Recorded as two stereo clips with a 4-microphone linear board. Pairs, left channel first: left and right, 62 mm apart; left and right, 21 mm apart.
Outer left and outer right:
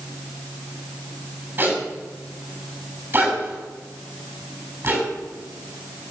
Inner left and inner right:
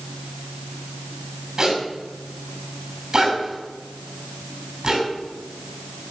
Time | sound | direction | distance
1.6 | a zipper | 30° right (ahead or behind) | 7 m